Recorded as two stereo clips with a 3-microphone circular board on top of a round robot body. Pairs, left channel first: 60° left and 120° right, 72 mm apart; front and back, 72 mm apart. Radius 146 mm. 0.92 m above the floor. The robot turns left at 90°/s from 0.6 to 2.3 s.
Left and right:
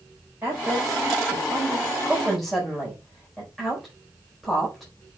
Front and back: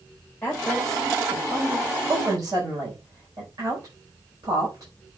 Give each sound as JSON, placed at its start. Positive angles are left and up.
{"t": 0.4, "sound": "a woman speaking", "azimuth_deg": -55, "distance_m": 5.0}